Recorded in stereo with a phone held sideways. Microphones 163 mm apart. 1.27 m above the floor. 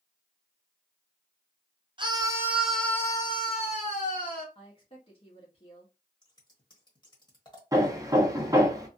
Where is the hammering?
20° right (ahead or behind), 0.7 m.